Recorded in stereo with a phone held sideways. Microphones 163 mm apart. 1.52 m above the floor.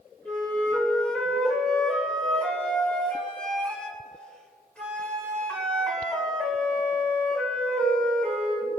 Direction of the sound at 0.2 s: 5° left (ahead or behind).